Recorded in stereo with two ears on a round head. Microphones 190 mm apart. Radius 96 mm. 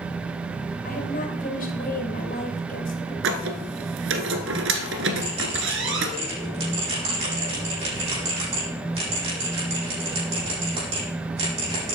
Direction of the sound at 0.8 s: 45° left (ahead or behind).